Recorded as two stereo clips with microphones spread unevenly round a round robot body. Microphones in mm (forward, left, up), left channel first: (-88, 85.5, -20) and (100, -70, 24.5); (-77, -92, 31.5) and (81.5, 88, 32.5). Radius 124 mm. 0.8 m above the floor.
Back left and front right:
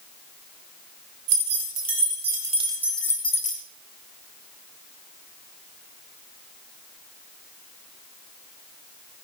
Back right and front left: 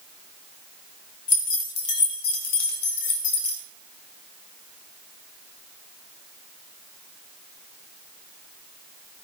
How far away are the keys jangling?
About 2.5 m.